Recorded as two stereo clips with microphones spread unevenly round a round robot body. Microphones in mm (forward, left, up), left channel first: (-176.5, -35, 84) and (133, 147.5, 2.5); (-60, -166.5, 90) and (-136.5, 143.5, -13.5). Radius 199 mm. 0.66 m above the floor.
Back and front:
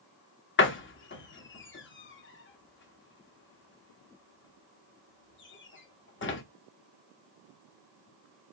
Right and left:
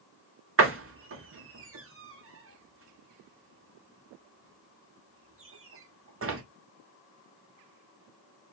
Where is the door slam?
150° left, 1.2 m.